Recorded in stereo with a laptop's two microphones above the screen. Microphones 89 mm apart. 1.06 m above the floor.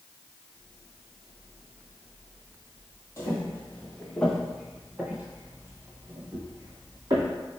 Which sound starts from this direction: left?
Footsteps, at 3.2 s.